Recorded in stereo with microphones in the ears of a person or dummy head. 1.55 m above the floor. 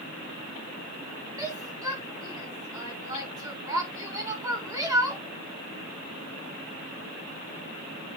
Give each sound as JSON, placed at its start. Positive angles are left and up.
{"t": 1.4, "sound": "a shout", "side_deg": -20, "distance_m": 2.5}